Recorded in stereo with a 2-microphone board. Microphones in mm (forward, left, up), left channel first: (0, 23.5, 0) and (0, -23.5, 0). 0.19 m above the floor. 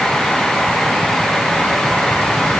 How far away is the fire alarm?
I don't hear a fire alarm.